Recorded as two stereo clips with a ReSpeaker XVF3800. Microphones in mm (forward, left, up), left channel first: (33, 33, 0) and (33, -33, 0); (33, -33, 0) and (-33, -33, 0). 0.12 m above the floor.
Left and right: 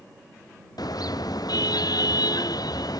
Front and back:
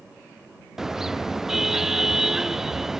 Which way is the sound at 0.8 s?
95° left.